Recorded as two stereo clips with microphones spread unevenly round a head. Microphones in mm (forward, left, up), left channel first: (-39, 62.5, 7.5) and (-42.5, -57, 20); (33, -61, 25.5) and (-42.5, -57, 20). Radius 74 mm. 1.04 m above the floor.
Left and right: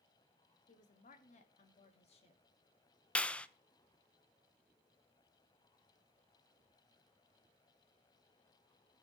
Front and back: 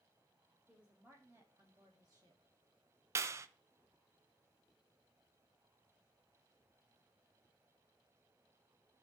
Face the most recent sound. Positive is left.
turn(degrees=155)